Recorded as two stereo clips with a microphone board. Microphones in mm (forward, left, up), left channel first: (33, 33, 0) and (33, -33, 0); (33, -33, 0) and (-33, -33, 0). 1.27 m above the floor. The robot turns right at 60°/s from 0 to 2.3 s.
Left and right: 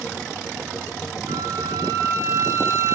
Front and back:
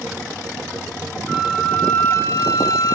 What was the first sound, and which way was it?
A flute, 100° right.